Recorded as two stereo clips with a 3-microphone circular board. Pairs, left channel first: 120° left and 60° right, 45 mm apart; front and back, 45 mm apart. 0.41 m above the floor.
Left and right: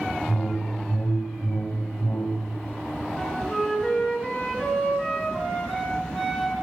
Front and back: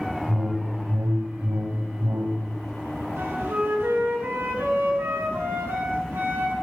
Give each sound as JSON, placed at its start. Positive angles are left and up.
{"t": 0.3, "sound": "a whoosh", "azimuth_deg": 170, "distance_m": 0.8}
{"t": 3.2, "sound": "a flute", "azimuth_deg": -165, "distance_m": 3.0}